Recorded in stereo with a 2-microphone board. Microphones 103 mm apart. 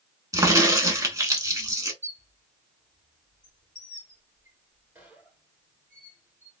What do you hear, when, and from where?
0.3 s a crack: 35° right (ahead or behind), 0.8 m
2.0 s a squeak: 20° right (ahead or behind), 2 m